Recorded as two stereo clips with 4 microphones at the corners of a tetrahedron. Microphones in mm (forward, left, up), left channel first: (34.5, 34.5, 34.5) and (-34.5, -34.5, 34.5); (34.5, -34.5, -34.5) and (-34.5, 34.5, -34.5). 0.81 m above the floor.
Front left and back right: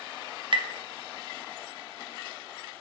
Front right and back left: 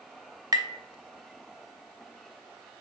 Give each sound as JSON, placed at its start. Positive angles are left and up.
{"t": 0.5, "sound": "tapping", "azimuth_deg": -175, "distance_m": 0.6}